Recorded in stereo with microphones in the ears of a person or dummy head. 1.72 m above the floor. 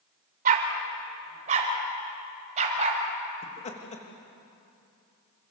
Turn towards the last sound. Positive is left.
turn(degrees=30)  # may be behind; listen again after turning